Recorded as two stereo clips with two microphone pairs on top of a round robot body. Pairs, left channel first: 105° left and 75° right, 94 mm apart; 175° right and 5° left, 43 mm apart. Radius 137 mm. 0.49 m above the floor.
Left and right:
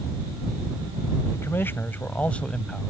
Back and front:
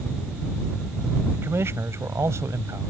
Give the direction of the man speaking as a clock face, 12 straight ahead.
11 o'clock.